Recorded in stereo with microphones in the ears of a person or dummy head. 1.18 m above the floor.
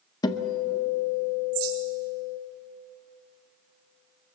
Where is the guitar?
20° left (ahead or behind), 1.3 m.